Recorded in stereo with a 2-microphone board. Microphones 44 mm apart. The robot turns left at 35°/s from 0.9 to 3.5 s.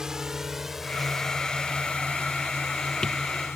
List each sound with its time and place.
0.0 s a drone: 15° right (ahead or behind); by 3.6 s 80° left